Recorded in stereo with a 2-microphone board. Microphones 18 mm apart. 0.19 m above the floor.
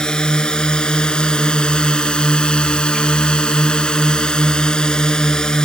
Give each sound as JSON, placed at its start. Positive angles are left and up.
{"t": 0.0, "sound": "a drone", "side_deg": 45}